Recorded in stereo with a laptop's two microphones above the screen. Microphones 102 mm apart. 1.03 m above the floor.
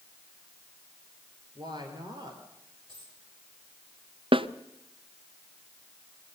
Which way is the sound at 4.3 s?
55° right (ahead or behind).